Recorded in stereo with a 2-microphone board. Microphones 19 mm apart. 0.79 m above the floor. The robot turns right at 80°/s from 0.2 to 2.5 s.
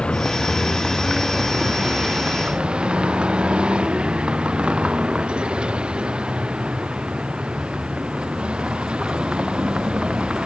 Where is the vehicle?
110° left; by 10.5 s 65° right.